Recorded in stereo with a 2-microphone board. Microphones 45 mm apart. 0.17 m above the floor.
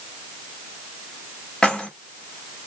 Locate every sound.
1.6 s keys jangling: 20° left (ahead or behind), 0.8 m